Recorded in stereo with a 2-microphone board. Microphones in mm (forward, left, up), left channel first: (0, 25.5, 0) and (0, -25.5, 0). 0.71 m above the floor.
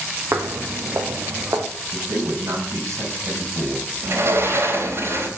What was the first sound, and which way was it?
Footsteps, 60° right (ahead or behind).